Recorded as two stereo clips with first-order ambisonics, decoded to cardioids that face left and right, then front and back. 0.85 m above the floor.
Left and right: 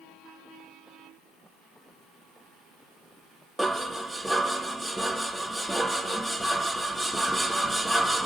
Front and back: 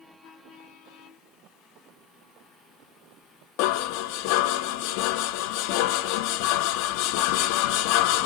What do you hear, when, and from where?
3.6 s dishes clattering: straight ahead, 0.7 m